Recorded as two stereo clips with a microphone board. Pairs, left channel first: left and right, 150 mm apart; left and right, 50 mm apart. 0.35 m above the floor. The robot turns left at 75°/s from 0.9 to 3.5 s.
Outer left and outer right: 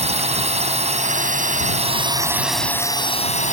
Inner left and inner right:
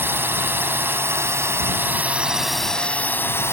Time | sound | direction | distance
0.0 | a drone | 55° right | ?